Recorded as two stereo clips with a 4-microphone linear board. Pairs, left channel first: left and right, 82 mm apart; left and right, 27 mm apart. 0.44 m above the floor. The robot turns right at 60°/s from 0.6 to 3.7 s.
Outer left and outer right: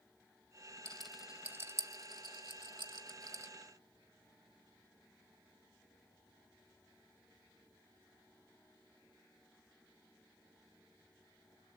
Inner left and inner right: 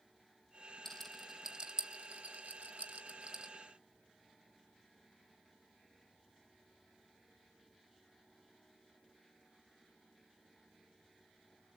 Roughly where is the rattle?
Centre.